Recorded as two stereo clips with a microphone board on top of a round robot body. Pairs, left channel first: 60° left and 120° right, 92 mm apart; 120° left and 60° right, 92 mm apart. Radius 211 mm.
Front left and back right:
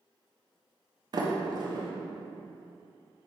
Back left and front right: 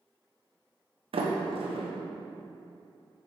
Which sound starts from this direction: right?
A sliding door, at 1.1 s.